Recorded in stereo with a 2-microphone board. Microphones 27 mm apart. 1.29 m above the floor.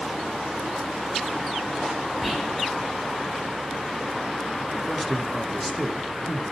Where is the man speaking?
5° left (ahead or behind), 1.1 m.